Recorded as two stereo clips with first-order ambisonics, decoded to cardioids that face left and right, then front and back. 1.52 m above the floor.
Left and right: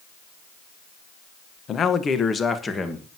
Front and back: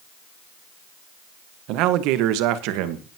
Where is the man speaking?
150° left, 1.1 m; by 3.1 s 170° left, 1.7 m.